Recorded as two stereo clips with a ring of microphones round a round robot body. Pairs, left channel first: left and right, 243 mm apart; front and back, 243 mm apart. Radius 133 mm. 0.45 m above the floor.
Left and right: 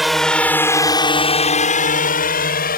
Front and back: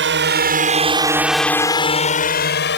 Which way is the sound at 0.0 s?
Straight behind.